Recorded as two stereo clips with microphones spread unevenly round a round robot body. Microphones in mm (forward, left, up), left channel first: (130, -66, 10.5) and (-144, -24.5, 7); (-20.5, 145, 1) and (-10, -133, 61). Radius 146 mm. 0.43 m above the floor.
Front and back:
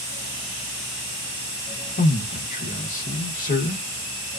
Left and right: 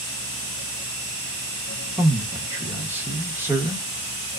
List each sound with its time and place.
2.0 s a man speaking: 10° left, 0.8 m